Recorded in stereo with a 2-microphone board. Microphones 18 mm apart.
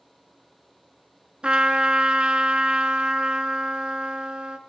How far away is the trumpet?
About 2 m.